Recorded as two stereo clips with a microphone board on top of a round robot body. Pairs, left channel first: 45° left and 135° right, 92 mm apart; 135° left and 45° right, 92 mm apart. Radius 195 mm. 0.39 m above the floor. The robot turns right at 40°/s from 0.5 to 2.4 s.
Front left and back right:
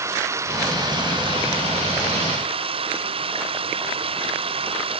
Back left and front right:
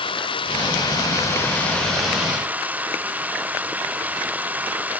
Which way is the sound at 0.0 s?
165° left.